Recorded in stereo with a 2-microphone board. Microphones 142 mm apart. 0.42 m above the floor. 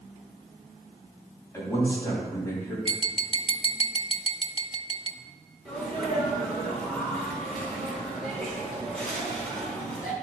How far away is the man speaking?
About 3 m.